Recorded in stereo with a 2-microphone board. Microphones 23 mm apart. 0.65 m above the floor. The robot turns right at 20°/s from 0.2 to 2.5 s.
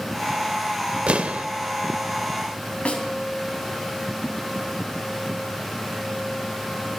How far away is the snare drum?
About 2.5 m.